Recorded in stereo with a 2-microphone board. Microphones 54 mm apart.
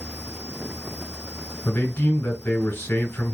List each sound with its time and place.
1.6 s a man speaking: 30° left (ahead or behind), 1.0 m